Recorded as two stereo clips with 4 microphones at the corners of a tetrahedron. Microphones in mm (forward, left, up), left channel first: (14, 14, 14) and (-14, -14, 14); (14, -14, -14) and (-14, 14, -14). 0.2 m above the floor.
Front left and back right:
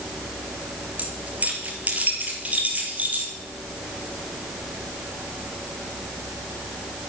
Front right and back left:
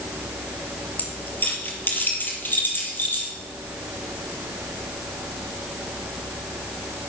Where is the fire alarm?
No fire alarm in this recording.